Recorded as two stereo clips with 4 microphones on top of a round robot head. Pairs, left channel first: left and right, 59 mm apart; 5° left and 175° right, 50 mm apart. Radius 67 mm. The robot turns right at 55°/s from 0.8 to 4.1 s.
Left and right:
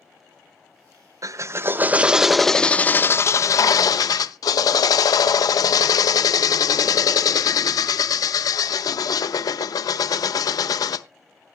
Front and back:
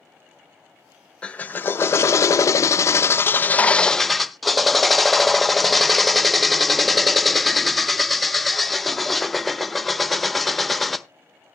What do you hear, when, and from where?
1.2 s a drill: 65° right, 0.6 m; by 11.1 s 95° left, 0.6 m